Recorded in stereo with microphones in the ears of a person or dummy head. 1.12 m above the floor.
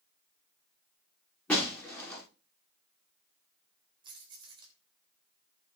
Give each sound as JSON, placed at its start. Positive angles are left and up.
{"t": 1.5, "sound": "breaking glass", "side_deg": 15, "distance_m": 6.5}
{"t": 4.0, "sound": "keys jangling", "side_deg": -15, "distance_m": 3.5}